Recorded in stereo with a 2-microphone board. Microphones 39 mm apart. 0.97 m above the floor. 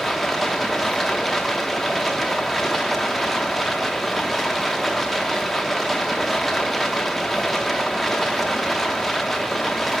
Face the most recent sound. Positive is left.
turn(degrees=0)  # may be behind; listen again after turning